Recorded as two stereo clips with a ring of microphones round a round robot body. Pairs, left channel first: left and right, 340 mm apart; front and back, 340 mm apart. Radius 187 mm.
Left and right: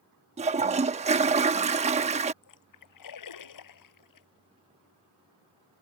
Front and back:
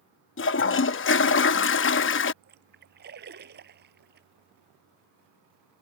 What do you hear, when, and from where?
0.4 s a toilet flushing: 30° right
2.4 s a splash: 115° left